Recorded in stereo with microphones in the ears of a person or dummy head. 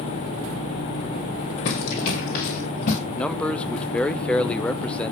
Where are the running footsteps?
55° left (ahead or behind), 2.5 m; by 3.0 s 35° left (ahead or behind), 2.5 m.